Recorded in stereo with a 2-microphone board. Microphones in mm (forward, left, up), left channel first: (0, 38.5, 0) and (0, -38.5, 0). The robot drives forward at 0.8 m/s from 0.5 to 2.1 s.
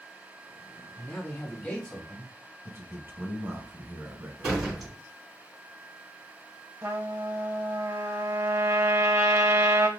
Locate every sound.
1.0 s a man speaking: 25° left (ahead or behind), 1.5 m; by 2.5 s 20° left (ahead or behind), 2.0 m
2.6 s a man speaking: 30° right (ahead or behind), 1.0 m
4.4 s a door slam: centre (ahead or behind), 2 m
6.8 s a trumpet: 35° right (ahead or behind), 0.6 m